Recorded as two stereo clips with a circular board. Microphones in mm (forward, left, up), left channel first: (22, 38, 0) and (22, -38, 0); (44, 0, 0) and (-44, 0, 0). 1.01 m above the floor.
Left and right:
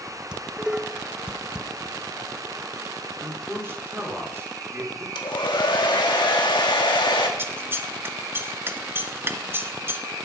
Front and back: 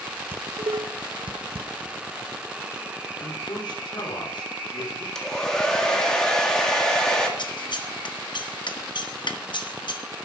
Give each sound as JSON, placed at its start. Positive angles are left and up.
{"t": 0.3, "sound": "dishes clattering", "azimuth_deg": -170, "distance_m": 0.5}
{"t": 3.2, "sound": "a man speaking", "azimuth_deg": -30, "distance_m": 3.5}
{"t": 5.2, "sound": "a hair dryer", "azimuth_deg": 80, "distance_m": 1.9}
{"t": 7.4, "sound": "scissors", "azimuth_deg": -30, "distance_m": 1.0}